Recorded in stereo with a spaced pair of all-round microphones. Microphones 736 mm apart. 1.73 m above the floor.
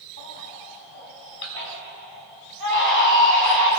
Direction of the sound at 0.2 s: 45° left (ahead or behind).